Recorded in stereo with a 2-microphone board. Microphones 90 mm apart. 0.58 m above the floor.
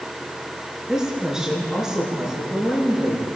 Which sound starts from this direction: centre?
A woman speaking, at 0.9 s.